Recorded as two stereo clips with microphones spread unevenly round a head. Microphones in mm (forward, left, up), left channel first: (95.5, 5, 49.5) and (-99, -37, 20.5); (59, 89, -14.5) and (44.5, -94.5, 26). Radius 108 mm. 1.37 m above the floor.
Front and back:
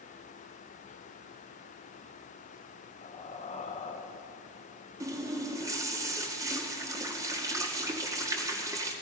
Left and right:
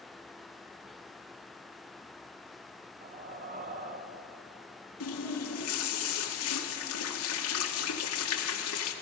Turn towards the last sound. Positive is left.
turn(degrees=115)